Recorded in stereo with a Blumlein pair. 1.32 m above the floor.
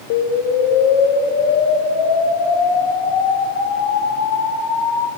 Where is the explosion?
40° left, 0.8 m.